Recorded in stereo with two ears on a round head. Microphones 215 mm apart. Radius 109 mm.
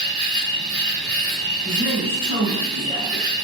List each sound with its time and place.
0.0 s an insect: 20° left (ahead or behind), 1.9 m
1.6 s a woman speaking: 35° left (ahead or behind), 2.0 m